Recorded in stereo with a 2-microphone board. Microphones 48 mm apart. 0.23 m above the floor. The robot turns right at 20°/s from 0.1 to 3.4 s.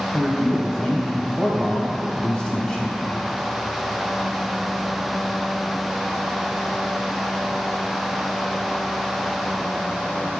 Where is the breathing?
No breathing in this recording.